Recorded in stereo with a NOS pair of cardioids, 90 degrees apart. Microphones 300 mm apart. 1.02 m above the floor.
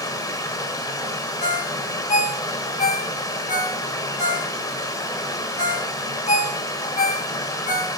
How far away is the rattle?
I don't hear a rattle.